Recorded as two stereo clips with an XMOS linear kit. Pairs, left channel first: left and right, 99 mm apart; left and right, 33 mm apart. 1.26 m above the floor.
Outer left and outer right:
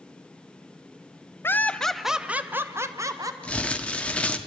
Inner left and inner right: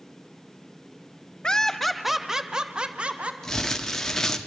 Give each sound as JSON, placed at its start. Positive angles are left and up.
{"t": 1.4, "sound": "laughter", "side_deg": 25, "distance_m": 0.9}
{"t": 3.4, "sound": "crumpling", "side_deg": 10, "distance_m": 1.2}